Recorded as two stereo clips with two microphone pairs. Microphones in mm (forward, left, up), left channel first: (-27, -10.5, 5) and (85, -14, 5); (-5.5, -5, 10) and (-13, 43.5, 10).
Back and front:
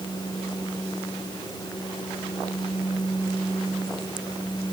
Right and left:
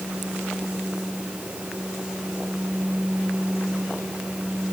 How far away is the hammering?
I don't hear hammering.